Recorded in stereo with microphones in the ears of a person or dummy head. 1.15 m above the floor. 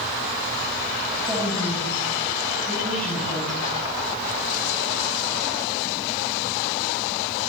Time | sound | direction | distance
1.2 | a woman speaking | centre (ahead or behind) | 8 m